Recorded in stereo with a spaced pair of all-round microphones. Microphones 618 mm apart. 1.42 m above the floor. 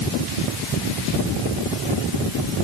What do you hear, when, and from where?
Only background noise.